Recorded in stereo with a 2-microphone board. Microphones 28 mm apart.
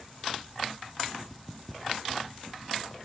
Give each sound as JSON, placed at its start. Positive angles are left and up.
{"t": 1.3, "sound": "footsteps", "side_deg": 0, "distance_m": 1.8}